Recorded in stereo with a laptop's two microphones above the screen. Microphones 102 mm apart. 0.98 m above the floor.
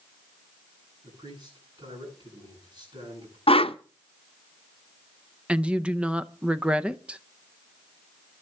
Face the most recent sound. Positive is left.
turn(degrees=-10)  # may be behind; listen again after turning